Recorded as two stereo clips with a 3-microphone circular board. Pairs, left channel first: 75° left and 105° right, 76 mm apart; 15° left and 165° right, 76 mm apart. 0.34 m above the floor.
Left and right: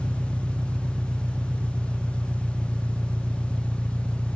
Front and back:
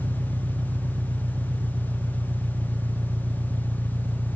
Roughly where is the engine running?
Behind.